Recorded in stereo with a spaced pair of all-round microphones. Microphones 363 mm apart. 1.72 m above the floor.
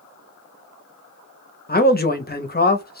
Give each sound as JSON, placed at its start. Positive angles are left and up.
{"t": 1.7, "sound": "a man speaking", "side_deg": 25, "distance_m": 0.7}